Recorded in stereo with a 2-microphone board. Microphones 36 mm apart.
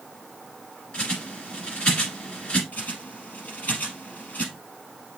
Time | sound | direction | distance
0.9 | a bird | 30° left (ahead or behind) | 2.5 m
2.7 | a bird | 45° left (ahead or behind) | 2.5 m